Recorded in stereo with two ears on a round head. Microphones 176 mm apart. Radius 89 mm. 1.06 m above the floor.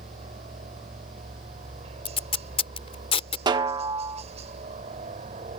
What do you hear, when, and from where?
0.0 s a helicopter: 35° right (ahead or behind)
2.0 s tape being pulled: 30° left (ahead or behind)
3.5 s a snare drum: 25° right (ahead or behind)